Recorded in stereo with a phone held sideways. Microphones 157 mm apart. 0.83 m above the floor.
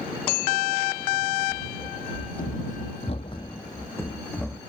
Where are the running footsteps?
60° left (ahead or behind); by 4.6 s 5° left (ahead or behind).